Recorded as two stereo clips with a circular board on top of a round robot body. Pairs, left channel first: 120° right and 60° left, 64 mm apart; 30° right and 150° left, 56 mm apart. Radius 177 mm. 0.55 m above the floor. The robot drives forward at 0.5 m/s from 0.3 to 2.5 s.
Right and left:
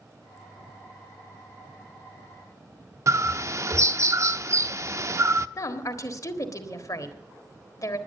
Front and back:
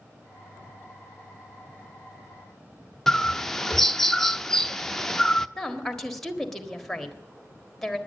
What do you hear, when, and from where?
3.1 s a bird: 50° left, 0.7 m
5.6 s a woman speaking: 115° right, 1.7 m